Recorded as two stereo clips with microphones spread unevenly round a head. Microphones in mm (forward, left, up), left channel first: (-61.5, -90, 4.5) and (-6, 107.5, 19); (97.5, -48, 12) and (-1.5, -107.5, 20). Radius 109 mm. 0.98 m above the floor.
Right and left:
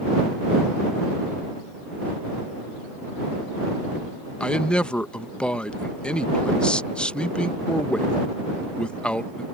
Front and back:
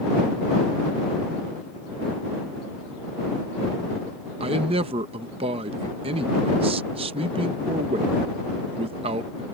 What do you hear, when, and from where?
4.4 s a man speaking: 175° left